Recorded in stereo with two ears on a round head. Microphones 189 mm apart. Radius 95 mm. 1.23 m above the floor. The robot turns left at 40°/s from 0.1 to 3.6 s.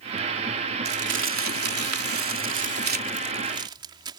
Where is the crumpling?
45° right (ahead or behind); by 4.2 s 20° right (ahead or behind).